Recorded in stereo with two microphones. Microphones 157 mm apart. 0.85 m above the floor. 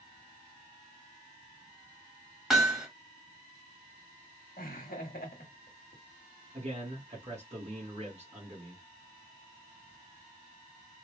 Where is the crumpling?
No crumpling in this recording.